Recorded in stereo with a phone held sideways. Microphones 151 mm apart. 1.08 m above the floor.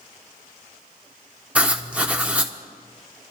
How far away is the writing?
About 1.0 m.